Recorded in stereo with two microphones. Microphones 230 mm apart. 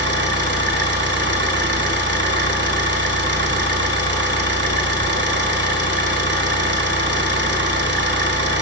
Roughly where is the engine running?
Right.